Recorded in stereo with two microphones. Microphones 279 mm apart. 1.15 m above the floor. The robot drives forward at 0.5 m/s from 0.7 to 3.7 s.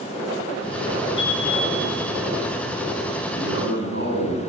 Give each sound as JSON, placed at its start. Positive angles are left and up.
{"t": 1.2, "sound": "a chime", "side_deg": 75, "distance_m": 5.5}
{"t": 3.3, "sound": "a man speaking", "side_deg": 40, "distance_m": 9.0}